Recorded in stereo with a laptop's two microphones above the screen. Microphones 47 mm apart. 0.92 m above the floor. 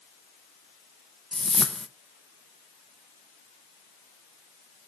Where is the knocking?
No knocking in this recording.